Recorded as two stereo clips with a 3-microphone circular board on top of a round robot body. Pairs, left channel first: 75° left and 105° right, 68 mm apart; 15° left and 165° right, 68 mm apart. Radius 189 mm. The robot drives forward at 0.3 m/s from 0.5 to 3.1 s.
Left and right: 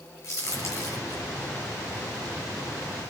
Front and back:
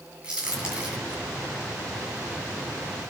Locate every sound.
0.2 s a crack: 120° left, 9 m; by 1.2 s 125° left, 9 m